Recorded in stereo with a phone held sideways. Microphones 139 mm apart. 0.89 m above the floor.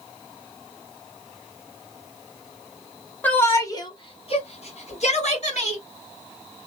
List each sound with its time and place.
3.2 s a shout: 10° left (ahead or behind), 0.9 m; by 5.8 s 60° left (ahead or behind), 1.6 m